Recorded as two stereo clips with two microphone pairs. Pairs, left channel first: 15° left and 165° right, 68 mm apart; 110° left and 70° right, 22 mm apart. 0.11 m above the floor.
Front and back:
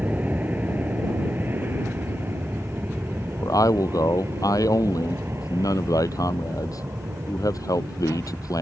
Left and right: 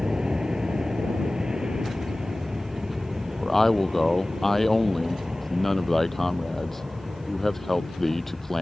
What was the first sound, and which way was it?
An aircraft, 110° right.